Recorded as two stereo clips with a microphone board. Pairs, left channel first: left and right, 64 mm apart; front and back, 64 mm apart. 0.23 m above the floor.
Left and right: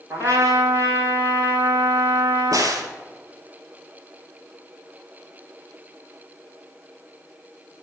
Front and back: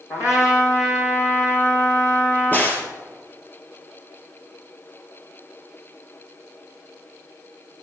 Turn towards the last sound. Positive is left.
turn(degrees=-65)